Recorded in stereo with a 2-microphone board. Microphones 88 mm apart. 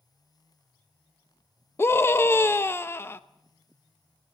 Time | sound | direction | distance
1.8 | a scream | 25° left (ahead or behind) | 0.7 m